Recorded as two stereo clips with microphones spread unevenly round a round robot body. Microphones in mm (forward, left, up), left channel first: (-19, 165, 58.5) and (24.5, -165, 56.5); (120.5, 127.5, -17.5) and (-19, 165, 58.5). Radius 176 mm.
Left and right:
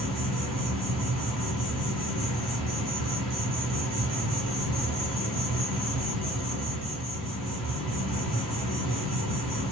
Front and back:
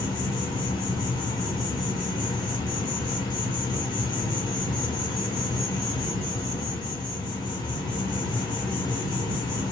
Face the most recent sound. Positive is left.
turn(degrees=10)